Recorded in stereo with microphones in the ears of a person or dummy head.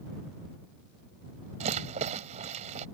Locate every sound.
1.6 s a rattle: 35° right (ahead or behind)